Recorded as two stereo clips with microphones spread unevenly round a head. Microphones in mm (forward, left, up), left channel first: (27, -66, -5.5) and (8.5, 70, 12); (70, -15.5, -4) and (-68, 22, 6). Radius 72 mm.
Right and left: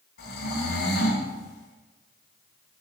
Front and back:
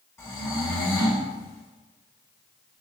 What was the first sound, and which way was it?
Snoring, 90° right.